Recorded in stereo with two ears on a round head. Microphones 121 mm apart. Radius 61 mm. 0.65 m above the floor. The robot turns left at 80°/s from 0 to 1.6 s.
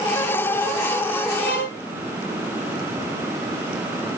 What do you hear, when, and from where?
1.4 s a violin: 50° left (ahead or behind), 7 m; by 1.8 s 70° left (ahead or behind), 7 m